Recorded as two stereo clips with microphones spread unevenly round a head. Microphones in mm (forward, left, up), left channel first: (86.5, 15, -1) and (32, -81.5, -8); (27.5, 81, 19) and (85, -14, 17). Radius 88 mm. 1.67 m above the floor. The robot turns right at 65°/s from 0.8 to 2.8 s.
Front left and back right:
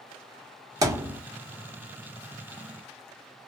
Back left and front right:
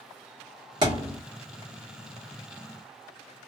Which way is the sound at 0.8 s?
85° right.